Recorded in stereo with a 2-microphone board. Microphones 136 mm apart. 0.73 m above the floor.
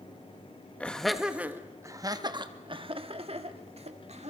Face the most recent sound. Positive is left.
turn(degrees=-50)  # may be behind; listen again after turning